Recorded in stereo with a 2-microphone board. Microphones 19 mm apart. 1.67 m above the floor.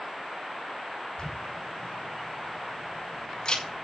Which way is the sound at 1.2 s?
55° left (ahead or behind).